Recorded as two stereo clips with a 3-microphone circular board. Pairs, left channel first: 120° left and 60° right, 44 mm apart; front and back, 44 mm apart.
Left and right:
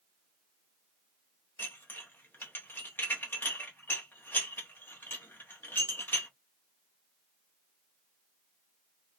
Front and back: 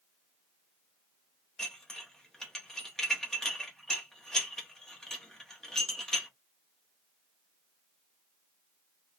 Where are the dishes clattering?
80° left, 1.3 m.